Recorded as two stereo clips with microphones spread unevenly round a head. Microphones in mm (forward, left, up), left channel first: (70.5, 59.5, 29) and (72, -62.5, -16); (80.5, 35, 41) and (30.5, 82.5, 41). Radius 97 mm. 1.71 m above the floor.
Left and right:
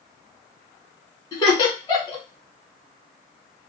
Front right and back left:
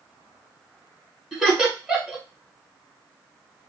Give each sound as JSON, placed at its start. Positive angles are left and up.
{"t": 1.3, "sound": "laughter", "azimuth_deg": 45, "distance_m": 1.5}